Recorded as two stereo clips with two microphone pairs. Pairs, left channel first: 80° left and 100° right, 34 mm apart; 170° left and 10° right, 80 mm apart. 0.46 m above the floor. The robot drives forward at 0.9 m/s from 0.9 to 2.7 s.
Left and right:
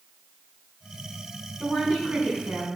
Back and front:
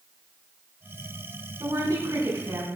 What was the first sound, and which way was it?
A woman speaking, 45° right.